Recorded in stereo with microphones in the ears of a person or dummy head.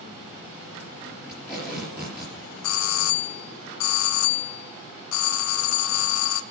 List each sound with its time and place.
1.3 s tape being pulled: 10° right (ahead or behind), 5.5 m
2.6 s a doorbell: 70° left (ahead or behind), 0.6 m